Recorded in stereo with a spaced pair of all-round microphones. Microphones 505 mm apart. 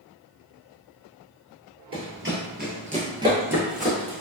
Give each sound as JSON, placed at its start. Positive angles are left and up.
{"t": 1.9, "sound": "running footsteps", "side_deg": -25, "distance_m": 1.2}